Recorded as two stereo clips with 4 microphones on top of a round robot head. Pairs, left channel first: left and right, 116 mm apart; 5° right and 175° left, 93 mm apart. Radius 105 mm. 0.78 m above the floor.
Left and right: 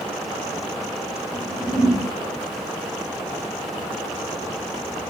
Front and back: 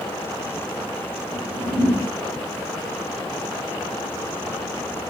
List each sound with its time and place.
1.3 s a whoosh: 160° right, 5 m